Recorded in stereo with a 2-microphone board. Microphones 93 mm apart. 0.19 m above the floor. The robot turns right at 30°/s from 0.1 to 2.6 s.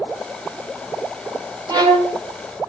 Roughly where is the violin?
Right.